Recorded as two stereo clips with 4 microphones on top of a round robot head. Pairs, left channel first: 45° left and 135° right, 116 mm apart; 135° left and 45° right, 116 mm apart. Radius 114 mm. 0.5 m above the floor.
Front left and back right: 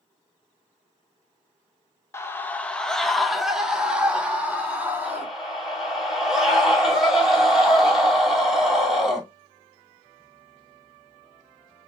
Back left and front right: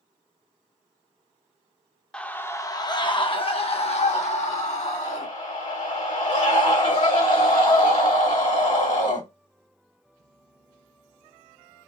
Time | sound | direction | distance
2.1 | a scream | 65° left | 1.1 m
5.0 | a scream | 135° left | 2.5 m